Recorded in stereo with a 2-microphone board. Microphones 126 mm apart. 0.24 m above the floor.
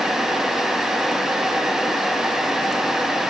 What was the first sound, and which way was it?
Only background noise.